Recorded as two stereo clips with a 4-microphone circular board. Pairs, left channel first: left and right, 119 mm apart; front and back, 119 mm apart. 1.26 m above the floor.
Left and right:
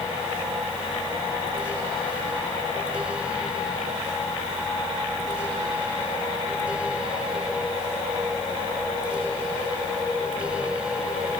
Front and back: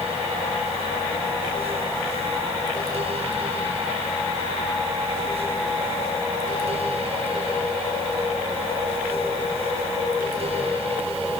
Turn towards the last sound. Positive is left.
No sound to turn to.